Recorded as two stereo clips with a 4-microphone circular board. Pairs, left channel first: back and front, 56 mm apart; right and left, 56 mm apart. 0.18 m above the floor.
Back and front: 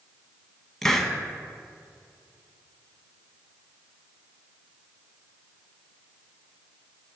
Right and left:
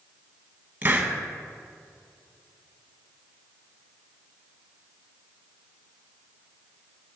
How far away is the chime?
I don't hear a chime.